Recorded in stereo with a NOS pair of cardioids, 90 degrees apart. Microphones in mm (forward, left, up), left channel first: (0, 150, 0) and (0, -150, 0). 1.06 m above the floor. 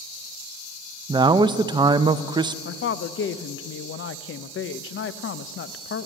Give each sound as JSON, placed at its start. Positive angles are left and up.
{"t": 1.1, "sound": "a man speaking", "azimuth_deg": -15, "distance_m": 0.6}
{"t": 2.6, "sound": "a woman speaking", "azimuth_deg": 45, "distance_m": 0.6}